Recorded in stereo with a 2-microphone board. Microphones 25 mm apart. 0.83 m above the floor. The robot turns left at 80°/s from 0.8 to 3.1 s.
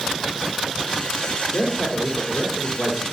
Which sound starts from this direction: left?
A man speaking, at 1.5 s.